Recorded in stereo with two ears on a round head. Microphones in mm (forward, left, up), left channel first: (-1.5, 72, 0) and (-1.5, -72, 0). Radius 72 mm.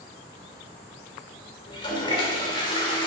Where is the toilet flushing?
30° left (ahead or behind), 1.4 m.